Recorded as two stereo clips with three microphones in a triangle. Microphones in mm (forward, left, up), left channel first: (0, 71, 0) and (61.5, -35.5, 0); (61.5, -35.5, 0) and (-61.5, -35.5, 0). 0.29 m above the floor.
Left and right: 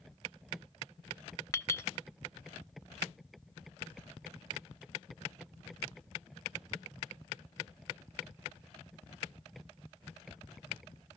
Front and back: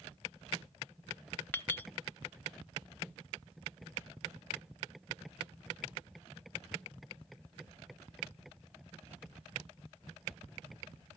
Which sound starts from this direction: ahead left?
A clink, at 1.5 s.